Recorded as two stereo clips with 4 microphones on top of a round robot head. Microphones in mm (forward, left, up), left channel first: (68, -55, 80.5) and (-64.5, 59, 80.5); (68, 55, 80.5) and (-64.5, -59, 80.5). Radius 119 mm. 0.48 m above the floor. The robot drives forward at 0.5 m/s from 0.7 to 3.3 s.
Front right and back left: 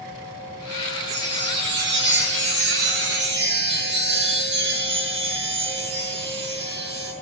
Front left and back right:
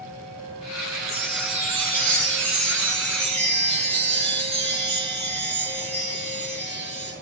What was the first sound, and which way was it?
A chime, 165° left.